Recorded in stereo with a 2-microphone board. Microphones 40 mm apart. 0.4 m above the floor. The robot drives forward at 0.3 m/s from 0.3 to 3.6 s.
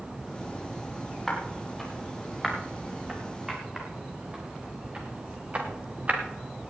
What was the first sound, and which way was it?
Footsteps, 5° left (ahead or behind).